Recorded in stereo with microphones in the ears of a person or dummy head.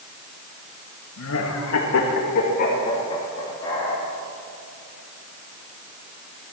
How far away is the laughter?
About 1.9 m.